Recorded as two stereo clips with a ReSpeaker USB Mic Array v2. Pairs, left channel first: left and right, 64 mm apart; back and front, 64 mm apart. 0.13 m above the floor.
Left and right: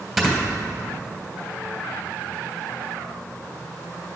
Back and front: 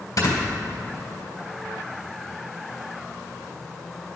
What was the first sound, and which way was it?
Snoring, 175° right.